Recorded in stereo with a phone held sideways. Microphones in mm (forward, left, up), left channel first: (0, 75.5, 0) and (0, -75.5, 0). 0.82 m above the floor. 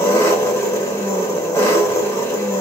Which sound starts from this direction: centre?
An engine running, at 0.0 s.